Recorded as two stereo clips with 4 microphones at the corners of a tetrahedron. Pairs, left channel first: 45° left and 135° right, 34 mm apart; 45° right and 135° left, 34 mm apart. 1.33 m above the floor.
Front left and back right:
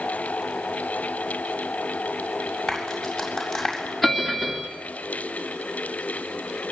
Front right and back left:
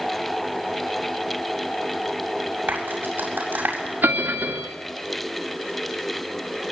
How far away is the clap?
About 7 m.